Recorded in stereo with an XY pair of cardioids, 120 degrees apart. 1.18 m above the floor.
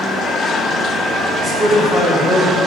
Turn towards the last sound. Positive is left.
turn(degrees=-30)